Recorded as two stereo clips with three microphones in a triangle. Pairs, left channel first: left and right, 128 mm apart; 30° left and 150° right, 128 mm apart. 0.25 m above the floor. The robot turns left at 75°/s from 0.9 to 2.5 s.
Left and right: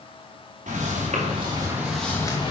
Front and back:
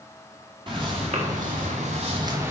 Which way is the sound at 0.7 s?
100° right.